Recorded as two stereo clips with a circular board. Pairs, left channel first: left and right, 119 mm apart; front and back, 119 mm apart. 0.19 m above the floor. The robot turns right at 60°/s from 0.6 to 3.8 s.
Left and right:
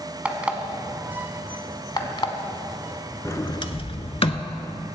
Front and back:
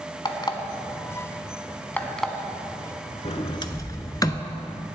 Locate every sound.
0.2 s an alarm clock: 15° right, 0.9 m; by 2.3 s 90° left, 0.9 m
3.2 s a sliding door: 25° left, 0.6 m; by 4.5 s 55° left, 0.6 m